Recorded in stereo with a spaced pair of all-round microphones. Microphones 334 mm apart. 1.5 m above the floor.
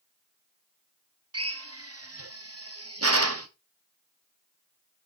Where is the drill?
45° right (ahead or behind), 0.9 m.